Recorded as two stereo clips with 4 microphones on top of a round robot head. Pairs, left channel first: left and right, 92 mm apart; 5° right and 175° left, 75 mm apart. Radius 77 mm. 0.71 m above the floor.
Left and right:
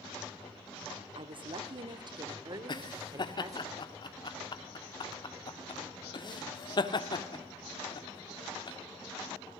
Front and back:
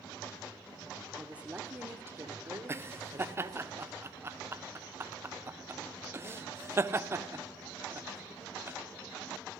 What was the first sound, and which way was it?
A woman speaking, 105° right.